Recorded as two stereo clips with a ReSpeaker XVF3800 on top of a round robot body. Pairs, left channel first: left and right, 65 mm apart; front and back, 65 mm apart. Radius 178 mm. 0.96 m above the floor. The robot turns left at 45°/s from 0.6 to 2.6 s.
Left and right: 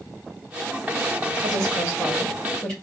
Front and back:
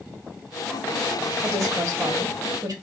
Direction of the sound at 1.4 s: 140° right.